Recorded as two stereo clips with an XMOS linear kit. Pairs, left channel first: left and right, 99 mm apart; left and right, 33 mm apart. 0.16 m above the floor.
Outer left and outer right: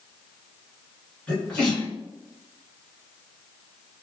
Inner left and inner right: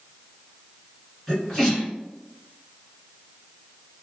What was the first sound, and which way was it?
A sneeze, 10° left (ahead or behind).